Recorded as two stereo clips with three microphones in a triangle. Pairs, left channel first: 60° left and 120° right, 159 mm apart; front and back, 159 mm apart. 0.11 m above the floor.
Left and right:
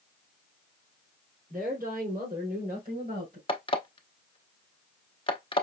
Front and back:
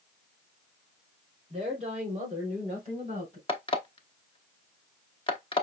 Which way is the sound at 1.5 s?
135° right.